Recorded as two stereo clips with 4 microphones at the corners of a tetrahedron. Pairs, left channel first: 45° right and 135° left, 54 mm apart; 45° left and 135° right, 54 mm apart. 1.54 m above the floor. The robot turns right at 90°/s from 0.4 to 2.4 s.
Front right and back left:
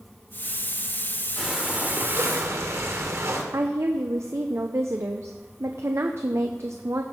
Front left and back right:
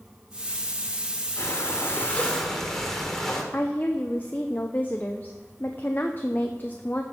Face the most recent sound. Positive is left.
turn(degrees=100)